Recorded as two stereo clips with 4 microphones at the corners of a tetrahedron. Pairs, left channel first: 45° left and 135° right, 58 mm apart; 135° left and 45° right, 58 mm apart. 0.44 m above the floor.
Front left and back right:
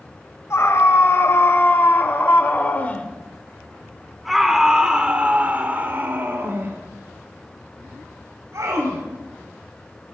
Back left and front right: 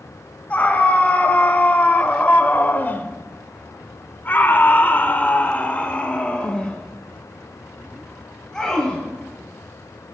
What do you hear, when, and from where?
0.5 s a scream: 75° left, 2.5 m; by 9.0 s 145° right, 3 m